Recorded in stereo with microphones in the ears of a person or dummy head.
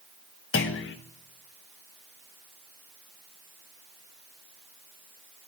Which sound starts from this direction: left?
A clunk, at 0.5 s.